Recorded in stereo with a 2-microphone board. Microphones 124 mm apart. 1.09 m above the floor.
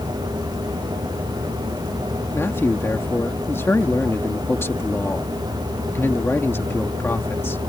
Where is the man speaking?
20° left (ahead or behind).